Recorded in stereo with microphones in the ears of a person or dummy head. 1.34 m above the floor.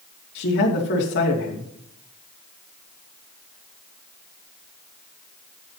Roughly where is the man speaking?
Left.